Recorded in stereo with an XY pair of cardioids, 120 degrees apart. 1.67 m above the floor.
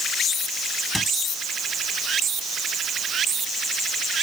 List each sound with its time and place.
0.9 s a squeak: 5° left